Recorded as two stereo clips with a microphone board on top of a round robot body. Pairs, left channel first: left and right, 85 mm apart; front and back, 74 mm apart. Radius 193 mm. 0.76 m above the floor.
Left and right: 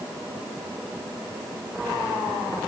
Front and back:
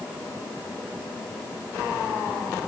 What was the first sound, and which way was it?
Only background noise.